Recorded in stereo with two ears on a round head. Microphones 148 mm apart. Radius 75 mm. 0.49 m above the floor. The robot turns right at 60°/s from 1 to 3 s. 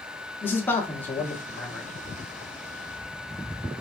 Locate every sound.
0.4 s a man speaking: 10° left (ahead or behind), 0.8 m; by 1.9 s 5° right (ahead or behind), 0.8 m